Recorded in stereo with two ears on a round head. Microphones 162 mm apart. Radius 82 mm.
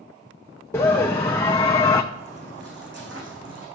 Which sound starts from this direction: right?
Footsteps, at 2.1 s.